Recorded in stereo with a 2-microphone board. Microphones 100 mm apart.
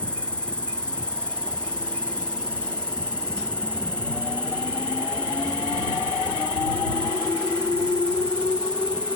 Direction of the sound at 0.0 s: 10° left (ahead or behind).